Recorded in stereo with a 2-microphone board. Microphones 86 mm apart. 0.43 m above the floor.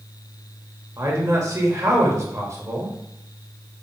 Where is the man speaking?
40° right (ahead or behind), 1.3 m.